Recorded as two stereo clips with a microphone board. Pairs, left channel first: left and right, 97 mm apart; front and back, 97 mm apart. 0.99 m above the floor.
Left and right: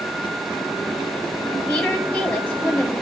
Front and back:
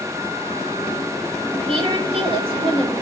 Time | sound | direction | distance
1.7 | a woman speaking | 165° left | 5.5 m